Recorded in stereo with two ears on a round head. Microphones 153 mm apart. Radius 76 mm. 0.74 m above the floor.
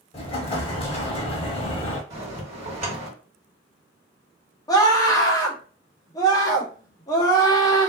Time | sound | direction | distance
0.1 | an explosion | 35° left (ahead or behind) | 0.7 m
2.1 | a bell | 45° right (ahead or behind) | 1.6 m
4.7 | a scream | 20° left (ahead or behind) | 0.6 m